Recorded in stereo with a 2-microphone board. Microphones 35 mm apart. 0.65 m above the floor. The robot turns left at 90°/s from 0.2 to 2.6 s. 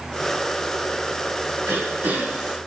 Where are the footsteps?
I don't hear footsteps.